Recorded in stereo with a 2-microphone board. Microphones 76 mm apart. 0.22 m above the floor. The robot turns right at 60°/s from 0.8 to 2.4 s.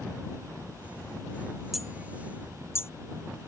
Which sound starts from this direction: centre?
Hammering, at 1.7 s.